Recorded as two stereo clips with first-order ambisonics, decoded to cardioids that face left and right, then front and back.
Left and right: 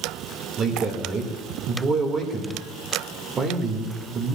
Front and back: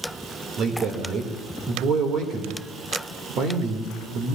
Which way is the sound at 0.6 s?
145° right.